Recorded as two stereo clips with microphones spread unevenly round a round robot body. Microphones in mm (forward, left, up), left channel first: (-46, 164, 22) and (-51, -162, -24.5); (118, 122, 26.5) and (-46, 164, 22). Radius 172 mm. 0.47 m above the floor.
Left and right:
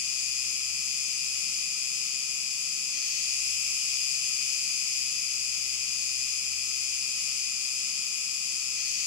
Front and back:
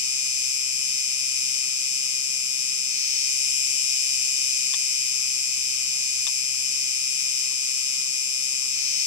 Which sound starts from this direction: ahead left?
An insect, at 0.0 s.